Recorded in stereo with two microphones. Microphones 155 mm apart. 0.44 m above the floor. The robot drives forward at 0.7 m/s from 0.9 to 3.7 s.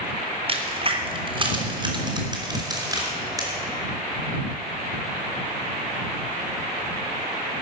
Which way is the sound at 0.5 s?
40° right (ahead or behind).